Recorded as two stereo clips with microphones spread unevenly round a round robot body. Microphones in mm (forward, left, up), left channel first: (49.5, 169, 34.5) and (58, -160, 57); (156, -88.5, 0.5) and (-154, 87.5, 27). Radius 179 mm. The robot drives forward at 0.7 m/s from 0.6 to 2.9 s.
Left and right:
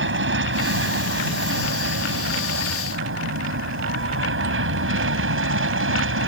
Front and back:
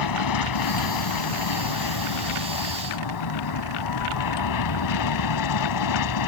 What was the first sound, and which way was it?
An aircraft, 40° right.